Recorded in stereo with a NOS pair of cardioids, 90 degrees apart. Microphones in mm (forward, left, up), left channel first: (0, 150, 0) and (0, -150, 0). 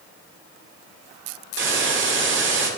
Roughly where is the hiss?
Ahead right.